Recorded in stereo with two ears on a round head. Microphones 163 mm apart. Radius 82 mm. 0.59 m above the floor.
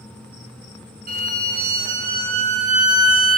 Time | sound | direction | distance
1.1 | a violin | 45° right (ahead or behind) | 0.7 m